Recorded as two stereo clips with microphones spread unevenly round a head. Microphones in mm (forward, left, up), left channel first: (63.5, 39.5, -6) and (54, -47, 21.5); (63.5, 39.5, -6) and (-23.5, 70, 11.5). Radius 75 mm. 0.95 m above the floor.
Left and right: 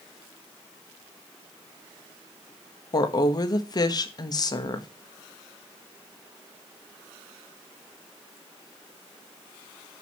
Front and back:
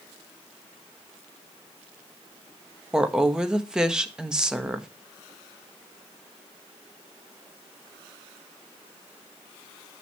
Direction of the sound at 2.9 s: 75° left.